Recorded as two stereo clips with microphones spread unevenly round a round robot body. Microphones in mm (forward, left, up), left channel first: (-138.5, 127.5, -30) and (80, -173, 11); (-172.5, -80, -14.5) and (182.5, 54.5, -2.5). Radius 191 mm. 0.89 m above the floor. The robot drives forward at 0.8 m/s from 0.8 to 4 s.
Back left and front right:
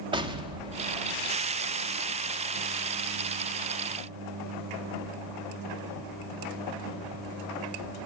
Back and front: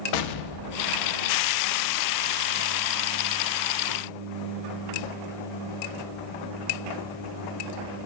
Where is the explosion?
135° right, 1.0 m; by 1.6 s 150° right, 1.5 m.